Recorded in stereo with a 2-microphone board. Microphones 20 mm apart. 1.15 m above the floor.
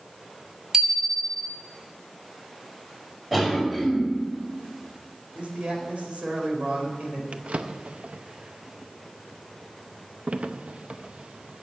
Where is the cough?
10° right (ahead or behind), 5 m.